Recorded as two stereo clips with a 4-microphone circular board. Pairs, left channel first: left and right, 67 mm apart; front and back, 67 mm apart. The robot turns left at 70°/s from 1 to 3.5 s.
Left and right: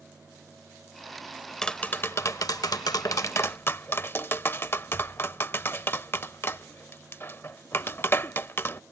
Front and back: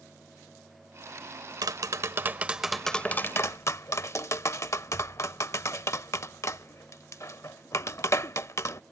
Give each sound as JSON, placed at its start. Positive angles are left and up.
{"t": 1.6, "sound": "tapping", "azimuth_deg": 170}